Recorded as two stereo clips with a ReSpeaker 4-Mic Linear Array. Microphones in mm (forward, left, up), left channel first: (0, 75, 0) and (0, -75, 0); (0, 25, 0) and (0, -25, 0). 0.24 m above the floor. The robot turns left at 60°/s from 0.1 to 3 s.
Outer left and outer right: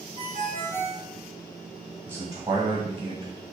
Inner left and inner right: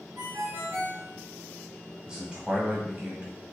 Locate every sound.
0.2 s a ringtone: 75° right, 1.1 m; by 1.1 s 130° right, 1.1 m
2.1 s a man speaking: 25° right, 1.2 m; by 3.3 s 80° right, 1.2 m